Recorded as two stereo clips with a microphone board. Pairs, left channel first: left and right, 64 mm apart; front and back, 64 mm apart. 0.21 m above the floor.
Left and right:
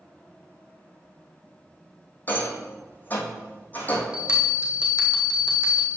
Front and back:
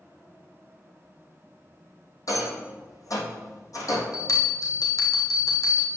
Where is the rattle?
30° left, 2.0 m.